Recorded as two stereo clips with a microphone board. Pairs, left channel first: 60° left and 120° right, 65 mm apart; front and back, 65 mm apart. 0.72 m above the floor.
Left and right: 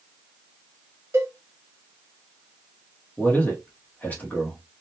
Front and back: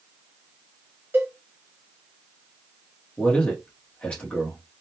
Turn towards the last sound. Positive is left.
turn(degrees=50)